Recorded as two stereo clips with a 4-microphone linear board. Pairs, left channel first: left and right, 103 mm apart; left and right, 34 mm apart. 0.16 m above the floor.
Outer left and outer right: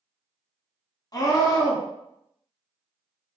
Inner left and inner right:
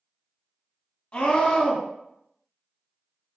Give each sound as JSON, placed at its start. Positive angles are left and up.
{"t": 1.1, "sound": "a scream", "side_deg": 40, "distance_m": 1.4}